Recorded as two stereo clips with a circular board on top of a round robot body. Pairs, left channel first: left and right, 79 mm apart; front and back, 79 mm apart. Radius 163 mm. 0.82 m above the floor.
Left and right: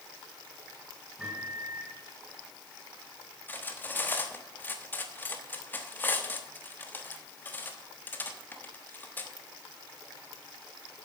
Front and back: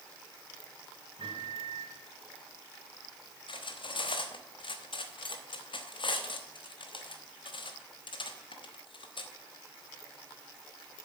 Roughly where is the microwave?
Behind.